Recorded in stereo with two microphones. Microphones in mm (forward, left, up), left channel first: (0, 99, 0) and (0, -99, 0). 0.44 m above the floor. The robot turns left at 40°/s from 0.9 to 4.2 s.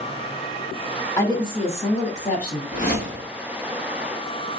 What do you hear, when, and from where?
1.2 s a woman speaking: 155° left, 1.3 m; by 2.6 s 100° left, 1.3 m
2.7 s a whoosh: 40° left (ahead or behind), 1.7 m; by 3.3 s 65° left (ahead or behind), 1.7 m